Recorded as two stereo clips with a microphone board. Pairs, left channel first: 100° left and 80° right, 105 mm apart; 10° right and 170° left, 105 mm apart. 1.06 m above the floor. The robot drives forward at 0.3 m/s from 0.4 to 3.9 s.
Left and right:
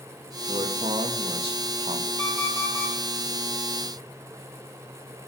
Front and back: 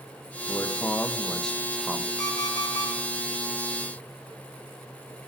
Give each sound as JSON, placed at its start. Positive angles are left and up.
{"t": 0.5, "sound": "a man speaking", "azimuth_deg": -75, "distance_m": 0.9}
{"t": 2.2, "sound": "an alarm clock", "azimuth_deg": -65, "distance_m": 5.0}